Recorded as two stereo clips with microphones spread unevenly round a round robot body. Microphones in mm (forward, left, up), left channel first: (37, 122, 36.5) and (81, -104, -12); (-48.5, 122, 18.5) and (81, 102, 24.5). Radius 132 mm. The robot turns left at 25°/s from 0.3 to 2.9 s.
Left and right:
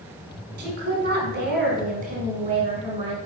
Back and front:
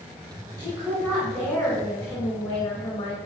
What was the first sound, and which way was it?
A woman speaking, 65° right.